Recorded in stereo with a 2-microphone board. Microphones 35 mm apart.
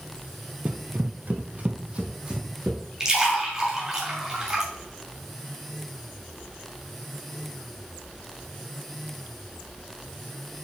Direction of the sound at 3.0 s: 15° right (ahead or behind).